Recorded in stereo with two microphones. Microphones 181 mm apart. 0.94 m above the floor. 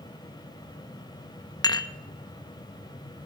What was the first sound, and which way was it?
Dishes clattering, 20° left (ahead or behind).